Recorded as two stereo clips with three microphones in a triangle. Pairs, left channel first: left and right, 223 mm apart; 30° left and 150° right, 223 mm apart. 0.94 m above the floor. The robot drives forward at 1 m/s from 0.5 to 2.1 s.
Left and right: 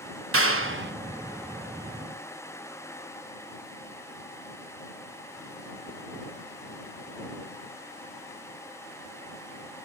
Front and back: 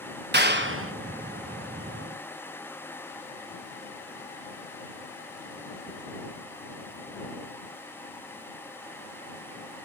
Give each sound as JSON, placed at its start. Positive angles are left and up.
{"t": 0.3, "sound": "a clap", "azimuth_deg": -110, "distance_m": 0.8}